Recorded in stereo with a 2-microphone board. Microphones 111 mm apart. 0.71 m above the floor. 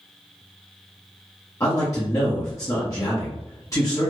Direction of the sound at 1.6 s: 30° left (ahead or behind).